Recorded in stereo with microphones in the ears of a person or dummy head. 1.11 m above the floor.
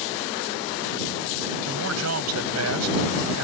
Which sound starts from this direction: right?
A man speaking, at 1.7 s.